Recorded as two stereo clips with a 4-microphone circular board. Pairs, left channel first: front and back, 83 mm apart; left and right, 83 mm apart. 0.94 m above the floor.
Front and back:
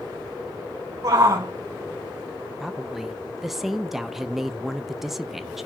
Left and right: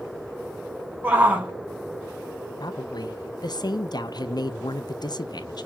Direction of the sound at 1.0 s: 155° right.